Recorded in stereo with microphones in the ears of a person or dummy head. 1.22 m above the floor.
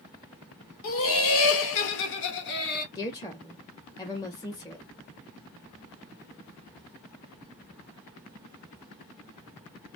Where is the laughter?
60° left (ahead or behind), 1.1 m; by 2.9 s 55° left (ahead or behind), 1.6 m.